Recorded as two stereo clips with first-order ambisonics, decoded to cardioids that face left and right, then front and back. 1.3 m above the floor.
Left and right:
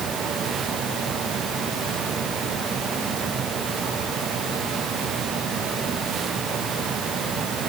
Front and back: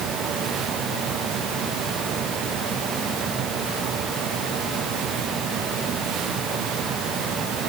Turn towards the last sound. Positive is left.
No sound to turn to.